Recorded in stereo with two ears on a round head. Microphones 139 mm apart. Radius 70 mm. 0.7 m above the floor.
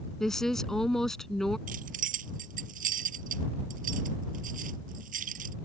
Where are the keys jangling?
60° right (ahead or behind).